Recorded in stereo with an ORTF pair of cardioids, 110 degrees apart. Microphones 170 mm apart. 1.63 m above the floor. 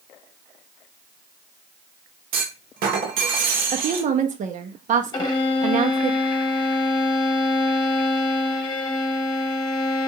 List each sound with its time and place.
2.3 s a clunk: 65° right, 1.3 m
3.7 s a woman speaking: 50° right, 1.0 m
5.1 s a violin: 25° left, 1.3 m